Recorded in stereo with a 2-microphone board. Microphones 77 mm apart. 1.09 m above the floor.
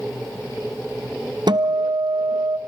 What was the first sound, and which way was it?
A guitar, 65° right (ahead or behind).